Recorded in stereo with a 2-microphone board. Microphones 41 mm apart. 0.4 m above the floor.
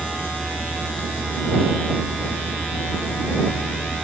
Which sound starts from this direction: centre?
A vehicle, at 0.0 s.